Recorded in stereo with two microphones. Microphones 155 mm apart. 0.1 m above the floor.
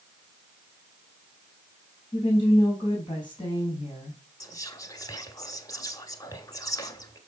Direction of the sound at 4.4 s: 25° left (ahead or behind).